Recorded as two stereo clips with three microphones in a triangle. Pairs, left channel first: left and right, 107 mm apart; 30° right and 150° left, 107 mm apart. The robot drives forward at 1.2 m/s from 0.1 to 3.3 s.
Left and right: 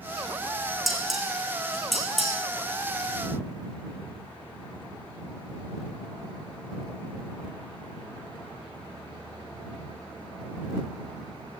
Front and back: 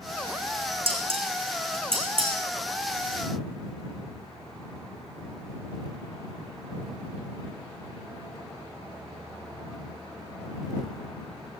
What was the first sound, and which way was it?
Dishes clattering, straight behind.